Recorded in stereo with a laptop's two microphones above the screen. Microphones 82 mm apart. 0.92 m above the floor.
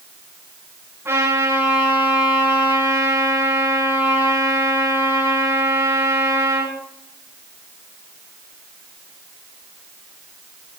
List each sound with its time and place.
1.1 s a trumpet: 30° right (ahead or behind), 9 m